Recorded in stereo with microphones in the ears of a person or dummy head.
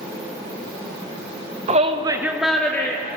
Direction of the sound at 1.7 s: 25° right (ahead or behind).